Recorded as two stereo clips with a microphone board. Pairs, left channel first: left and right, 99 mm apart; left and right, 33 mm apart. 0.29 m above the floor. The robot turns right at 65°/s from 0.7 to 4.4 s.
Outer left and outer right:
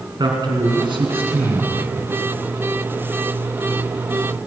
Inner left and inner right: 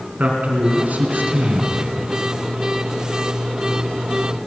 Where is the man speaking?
130° right, 3 m; by 1.8 s 55° right, 3 m.